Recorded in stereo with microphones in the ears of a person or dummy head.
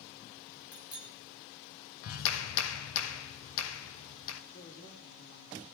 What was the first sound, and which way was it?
A bicycle bell, 20° left (ahead or behind).